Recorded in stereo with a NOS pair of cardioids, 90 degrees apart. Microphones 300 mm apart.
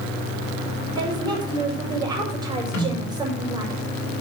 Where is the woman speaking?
15° right, 5 m.